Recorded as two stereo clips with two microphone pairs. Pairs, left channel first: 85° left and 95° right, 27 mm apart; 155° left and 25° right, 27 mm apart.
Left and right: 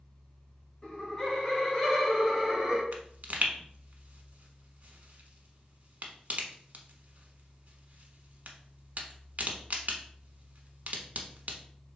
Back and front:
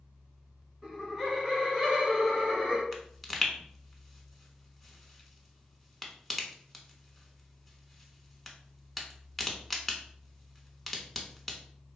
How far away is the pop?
About 0.7 m.